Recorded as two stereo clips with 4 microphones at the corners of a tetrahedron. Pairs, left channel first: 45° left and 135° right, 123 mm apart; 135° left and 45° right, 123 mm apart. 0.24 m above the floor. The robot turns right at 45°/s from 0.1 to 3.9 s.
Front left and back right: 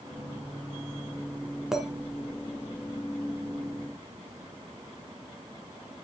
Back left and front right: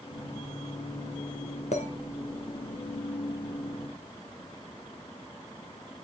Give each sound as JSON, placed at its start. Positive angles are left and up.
{"t": 1.7, "sound": "a clink", "azimuth_deg": 140, "distance_m": 1.8}